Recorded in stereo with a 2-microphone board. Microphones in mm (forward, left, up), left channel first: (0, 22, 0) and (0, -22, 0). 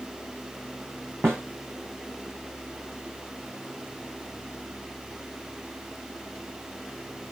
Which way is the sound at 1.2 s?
85° right.